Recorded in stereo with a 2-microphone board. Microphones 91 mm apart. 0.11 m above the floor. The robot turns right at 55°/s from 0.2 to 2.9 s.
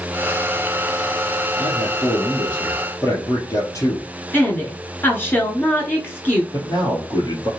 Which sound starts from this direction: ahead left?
A man speaking, at 1.6 s.